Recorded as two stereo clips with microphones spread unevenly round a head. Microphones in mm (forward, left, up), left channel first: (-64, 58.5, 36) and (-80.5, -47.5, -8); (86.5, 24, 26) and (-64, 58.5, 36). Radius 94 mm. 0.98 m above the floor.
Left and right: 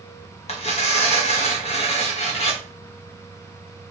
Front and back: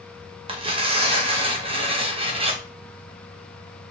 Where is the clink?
I don't hear a clink.